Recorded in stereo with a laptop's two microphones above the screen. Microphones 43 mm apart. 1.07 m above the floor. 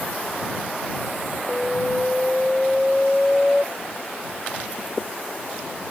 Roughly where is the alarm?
Centre.